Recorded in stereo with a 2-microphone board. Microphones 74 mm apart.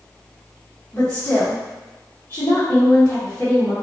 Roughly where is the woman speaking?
Left.